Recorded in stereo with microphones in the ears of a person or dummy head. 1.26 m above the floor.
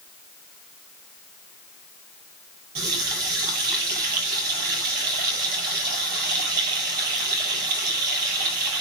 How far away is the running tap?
About 4.5 m.